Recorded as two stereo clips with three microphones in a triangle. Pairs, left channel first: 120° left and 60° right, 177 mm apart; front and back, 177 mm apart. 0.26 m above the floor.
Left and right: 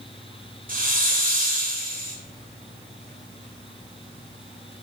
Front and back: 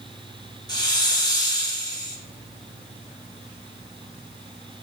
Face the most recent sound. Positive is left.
turn(degrees=-60)